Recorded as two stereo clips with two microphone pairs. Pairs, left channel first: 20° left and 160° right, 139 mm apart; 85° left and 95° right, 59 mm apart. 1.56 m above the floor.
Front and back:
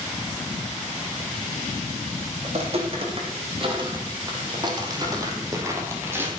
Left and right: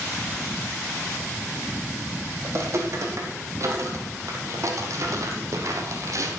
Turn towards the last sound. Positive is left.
turn(degrees=-90)